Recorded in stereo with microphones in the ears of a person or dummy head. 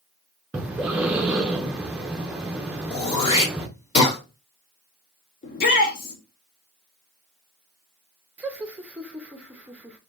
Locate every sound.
0.5 s breathing: 10° right (ahead or behind), 0.5 m
2.9 s throat clearing: 35° left (ahead or behind), 2.0 m
5.4 s a shout: 50° left (ahead or behind), 1.2 m
8.4 s laughter: 10° right (ahead or behind), 0.6 m